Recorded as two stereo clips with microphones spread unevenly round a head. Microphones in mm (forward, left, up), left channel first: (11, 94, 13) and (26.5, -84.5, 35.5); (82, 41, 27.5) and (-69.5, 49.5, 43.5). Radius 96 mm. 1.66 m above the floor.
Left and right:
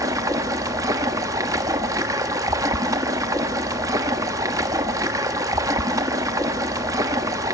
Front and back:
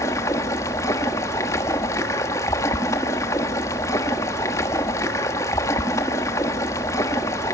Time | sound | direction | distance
0.0 | running water | 70° right | 1.1 m